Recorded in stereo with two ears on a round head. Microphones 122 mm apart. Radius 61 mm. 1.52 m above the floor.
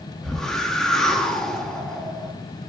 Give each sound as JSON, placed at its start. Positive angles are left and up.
{"t": 0.2, "sound": "a whoosh", "side_deg": 5, "distance_m": 1.1}